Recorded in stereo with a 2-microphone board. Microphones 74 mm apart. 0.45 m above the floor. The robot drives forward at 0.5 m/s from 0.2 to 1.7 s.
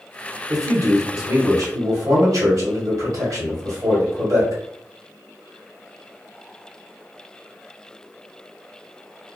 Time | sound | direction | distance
0.5 | a man speaking | 55° right (ahead or behind) | 1.3 m